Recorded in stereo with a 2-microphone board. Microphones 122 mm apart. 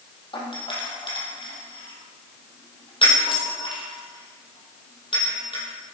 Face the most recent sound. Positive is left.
turn(degrees=45)  # may be behind; listen again after turning